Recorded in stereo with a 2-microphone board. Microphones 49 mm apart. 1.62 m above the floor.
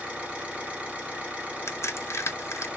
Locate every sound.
0.0 s an engine running: 25° right (ahead or behind), 1.3 m
1.7 s a crack: 70° left (ahead or behind), 0.7 m